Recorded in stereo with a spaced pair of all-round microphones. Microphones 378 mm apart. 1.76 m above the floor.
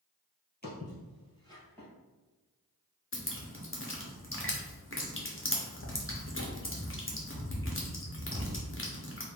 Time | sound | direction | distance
0.6 | footsteps | 25° left (ahead or behind) | 2.0 m
3.1 | dripping | 30° left (ahead or behind) | 0.9 m